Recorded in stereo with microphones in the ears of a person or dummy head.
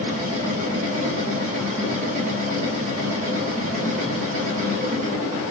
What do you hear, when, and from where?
0.0 s a machine running: 45° right (ahead or behind), 1.5 m